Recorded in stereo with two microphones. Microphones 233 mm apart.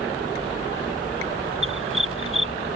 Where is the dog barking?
60° right (ahead or behind).